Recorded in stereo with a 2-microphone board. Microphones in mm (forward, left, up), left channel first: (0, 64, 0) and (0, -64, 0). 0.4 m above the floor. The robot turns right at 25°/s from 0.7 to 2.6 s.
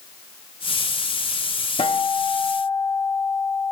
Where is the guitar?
50° left (ahead or behind), 0.6 m; by 3.7 s 30° left (ahead or behind), 0.6 m.